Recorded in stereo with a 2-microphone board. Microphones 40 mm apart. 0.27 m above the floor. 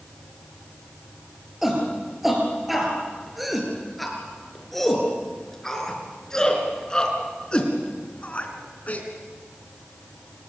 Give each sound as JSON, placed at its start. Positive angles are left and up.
{"t": 1.6, "sound": "a shout", "side_deg": -10, "distance_m": 7.0}